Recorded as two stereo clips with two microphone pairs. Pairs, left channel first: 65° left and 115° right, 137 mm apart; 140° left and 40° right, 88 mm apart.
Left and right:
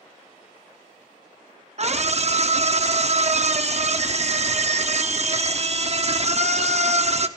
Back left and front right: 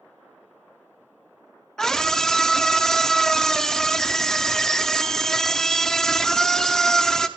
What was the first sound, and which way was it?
A scream, 135° right.